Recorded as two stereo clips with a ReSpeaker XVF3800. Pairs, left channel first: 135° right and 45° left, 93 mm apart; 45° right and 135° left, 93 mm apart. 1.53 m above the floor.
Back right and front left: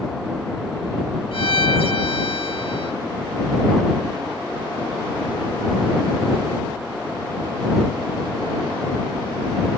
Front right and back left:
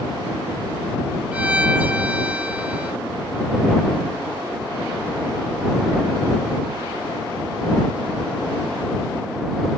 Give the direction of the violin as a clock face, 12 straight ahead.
5 o'clock.